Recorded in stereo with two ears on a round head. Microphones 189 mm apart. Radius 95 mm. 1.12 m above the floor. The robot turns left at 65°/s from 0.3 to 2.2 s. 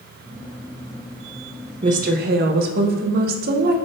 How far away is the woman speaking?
About 0.6 m.